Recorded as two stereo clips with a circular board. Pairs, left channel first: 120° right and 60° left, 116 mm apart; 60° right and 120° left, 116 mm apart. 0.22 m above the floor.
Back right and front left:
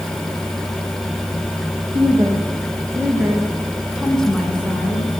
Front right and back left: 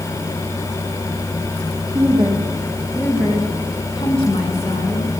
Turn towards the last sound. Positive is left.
turn(degrees=-45)